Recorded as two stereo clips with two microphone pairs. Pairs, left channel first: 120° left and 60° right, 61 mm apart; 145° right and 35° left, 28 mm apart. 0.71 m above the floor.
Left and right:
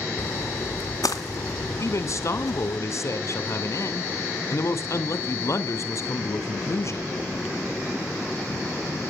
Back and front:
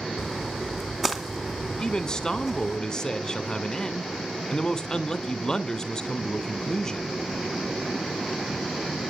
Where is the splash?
120° left, 2.5 m.